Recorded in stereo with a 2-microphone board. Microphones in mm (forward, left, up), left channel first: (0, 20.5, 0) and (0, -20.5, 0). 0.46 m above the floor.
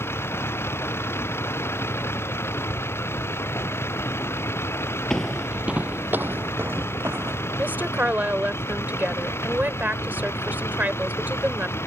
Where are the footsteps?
15° left (ahead or behind); by 7.5 s 75° right (ahead or behind).